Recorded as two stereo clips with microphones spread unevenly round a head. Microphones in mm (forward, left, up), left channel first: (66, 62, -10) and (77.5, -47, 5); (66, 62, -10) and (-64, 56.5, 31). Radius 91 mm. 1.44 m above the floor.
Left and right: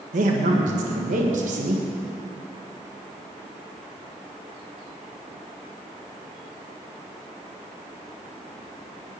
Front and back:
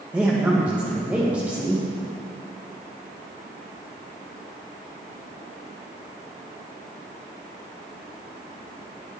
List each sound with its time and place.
0.1 s a man speaking: 95° right, 1.8 m